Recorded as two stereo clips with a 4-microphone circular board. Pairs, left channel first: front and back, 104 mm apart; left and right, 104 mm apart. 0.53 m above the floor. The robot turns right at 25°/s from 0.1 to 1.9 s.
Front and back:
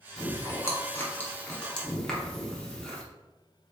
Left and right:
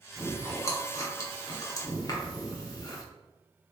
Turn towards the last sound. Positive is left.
turn(degrees=80)